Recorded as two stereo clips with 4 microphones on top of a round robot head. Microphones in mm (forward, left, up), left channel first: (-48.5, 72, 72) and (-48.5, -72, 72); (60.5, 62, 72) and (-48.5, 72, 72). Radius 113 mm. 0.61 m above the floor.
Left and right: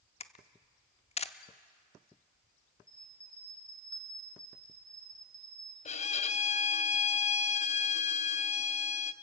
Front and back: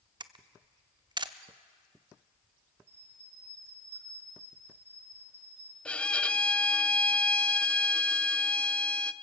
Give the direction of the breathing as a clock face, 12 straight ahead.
No breathing in this recording.